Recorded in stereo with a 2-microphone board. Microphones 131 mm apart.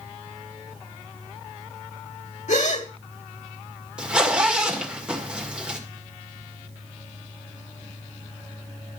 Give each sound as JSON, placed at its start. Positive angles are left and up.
{"t": 2.5, "sound": "a gasp", "side_deg": 60, "distance_m": 1.4}
{"t": 4.0, "sound": "a zipper", "side_deg": -10, "distance_m": 2.0}